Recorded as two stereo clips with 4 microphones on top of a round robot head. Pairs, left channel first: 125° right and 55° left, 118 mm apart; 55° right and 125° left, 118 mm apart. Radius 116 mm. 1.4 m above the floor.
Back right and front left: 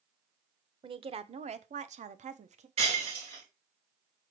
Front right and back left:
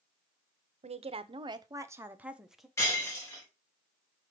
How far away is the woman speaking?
About 1.0 m.